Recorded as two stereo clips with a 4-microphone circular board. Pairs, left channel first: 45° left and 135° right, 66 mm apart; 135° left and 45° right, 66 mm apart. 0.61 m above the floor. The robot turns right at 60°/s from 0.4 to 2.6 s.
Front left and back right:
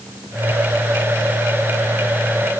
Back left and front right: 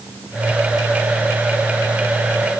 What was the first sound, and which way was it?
Only background noise.